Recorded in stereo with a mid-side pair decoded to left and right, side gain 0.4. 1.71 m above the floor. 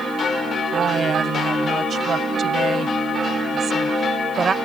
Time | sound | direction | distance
0.7 | a woman speaking | 60° right | ?